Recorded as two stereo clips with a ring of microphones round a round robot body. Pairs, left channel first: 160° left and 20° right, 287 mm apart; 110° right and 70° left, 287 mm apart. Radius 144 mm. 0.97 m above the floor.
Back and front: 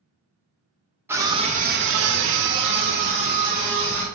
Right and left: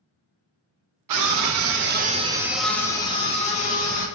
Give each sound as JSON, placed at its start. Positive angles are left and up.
{"t": 1.1, "sound": "a scream", "azimuth_deg": 60, "distance_m": 0.9}